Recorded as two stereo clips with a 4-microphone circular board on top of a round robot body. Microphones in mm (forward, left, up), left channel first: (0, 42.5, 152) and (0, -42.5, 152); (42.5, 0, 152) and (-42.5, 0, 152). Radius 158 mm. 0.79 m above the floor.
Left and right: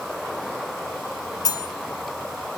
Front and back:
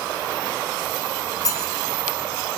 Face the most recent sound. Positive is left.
turn(degrees=50)